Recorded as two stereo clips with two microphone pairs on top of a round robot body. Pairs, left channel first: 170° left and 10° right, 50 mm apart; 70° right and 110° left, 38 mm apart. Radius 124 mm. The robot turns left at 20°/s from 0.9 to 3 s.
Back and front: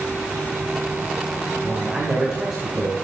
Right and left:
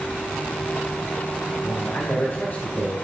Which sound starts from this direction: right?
A man speaking, at 1.6 s.